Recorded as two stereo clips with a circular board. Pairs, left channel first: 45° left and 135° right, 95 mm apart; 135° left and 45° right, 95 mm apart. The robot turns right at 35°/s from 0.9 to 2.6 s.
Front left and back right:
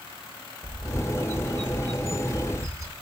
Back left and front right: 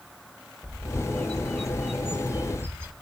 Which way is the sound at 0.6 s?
160° right.